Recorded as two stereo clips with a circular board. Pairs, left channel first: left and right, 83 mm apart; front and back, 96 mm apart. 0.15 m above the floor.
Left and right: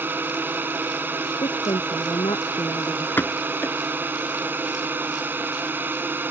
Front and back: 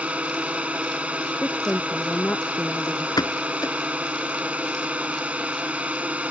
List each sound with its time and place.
0.0 s a drone: 120° right
1.4 s a woman speaking: 75° left
3.2 s a pop: 30° left